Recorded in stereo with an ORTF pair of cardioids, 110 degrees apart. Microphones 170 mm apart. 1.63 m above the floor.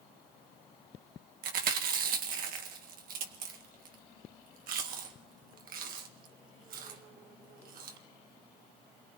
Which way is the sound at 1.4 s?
60° right.